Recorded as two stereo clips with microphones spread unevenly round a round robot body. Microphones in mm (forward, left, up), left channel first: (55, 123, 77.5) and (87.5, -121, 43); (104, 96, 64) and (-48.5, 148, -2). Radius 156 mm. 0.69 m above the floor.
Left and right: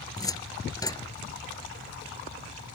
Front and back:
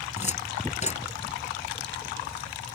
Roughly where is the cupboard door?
Ahead left.